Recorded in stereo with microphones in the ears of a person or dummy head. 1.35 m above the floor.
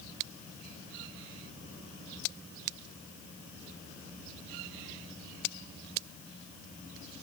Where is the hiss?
I don't hear a hiss.